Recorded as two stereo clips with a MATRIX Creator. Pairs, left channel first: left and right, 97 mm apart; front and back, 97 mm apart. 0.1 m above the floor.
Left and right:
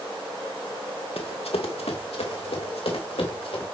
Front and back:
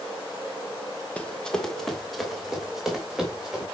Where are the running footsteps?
75° left, 1.4 m; by 3.6 s 95° left, 3.5 m.